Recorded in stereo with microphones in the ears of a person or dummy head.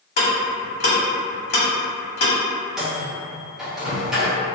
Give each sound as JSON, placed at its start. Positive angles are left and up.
{"t": 0.2, "sound": "ticking", "side_deg": 40, "distance_m": 0.8}
{"t": 2.8, "sound": "a microwave", "side_deg": -5, "distance_m": 0.6}